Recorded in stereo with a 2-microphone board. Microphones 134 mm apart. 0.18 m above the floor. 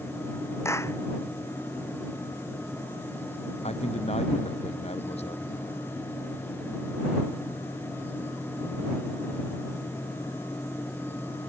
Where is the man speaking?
55° left (ahead or behind).